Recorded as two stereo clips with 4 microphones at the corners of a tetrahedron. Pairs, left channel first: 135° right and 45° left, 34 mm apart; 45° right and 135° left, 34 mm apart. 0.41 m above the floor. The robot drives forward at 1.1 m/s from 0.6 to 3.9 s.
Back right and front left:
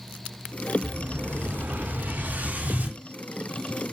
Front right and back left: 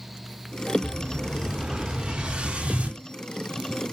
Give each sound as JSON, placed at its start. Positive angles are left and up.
{"t": 0.8, "sound": "an explosion", "azimuth_deg": 55, "distance_m": 4.0}